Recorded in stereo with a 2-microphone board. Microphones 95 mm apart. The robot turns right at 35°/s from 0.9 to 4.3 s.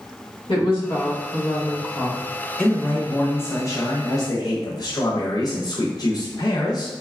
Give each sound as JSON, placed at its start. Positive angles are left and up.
{"t": 0.5, "sound": "a woman speaking", "azimuth_deg": 90, "distance_m": 1.2}
{"t": 2.6, "sound": "a man speaking", "azimuth_deg": 10, "distance_m": 0.7}